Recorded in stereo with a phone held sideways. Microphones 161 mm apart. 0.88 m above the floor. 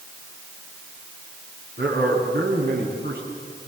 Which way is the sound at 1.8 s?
80° right.